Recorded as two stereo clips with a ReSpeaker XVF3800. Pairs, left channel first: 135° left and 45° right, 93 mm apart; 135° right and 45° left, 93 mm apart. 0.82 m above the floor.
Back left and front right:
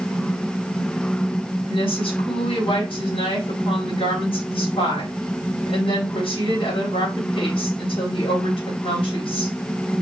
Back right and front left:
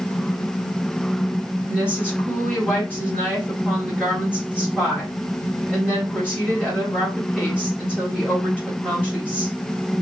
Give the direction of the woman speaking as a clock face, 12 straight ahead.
8 o'clock.